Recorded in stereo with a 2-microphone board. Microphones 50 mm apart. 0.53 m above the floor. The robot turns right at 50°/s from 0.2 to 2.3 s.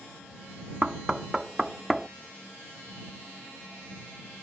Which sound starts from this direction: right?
Knocking, at 0.8 s.